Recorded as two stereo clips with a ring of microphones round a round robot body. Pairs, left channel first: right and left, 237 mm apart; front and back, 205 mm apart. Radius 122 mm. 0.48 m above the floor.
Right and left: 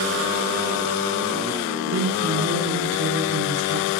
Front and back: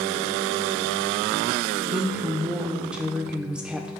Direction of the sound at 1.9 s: 95° left.